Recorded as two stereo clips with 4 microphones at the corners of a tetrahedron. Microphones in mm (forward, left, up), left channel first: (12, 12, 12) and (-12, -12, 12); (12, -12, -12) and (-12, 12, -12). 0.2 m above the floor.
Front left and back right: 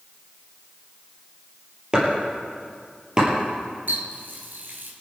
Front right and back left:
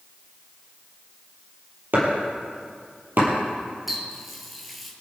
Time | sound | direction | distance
1.9 | chopping | 160° left | 5 m
3.9 | a running tap | 140° right | 2.5 m